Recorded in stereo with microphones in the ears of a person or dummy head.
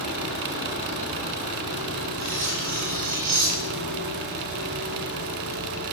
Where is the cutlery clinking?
50° right (ahead or behind), 7 m.